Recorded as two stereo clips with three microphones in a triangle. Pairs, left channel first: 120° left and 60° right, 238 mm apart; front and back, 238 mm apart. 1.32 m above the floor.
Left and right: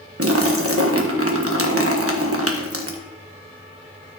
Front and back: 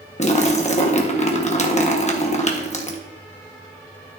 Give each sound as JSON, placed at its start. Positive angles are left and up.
{"t": 0.2, "sound": "a splash", "azimuth_deg": -60, "distance_m": 1.2}